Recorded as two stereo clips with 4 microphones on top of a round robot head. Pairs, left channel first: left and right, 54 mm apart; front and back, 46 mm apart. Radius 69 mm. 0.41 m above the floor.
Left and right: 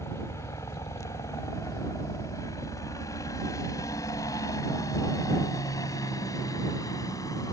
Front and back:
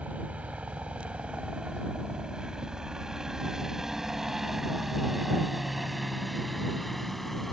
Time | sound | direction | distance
0.0 | a helicopter | 125° left | ?